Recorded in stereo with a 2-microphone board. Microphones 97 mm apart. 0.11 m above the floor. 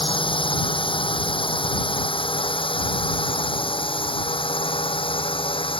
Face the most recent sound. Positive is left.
turn(degrees=65)  # may be behind; listen again after turning